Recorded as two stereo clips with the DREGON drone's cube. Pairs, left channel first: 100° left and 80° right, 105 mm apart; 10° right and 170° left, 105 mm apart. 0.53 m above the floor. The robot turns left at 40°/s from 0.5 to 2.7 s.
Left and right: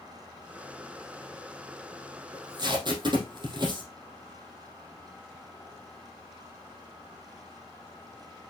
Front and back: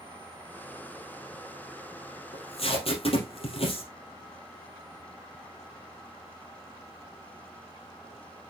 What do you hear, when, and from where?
2.3 s tape being pulled: 20° right, 3.5 m; by 3.9 s 35° right, 3.5 m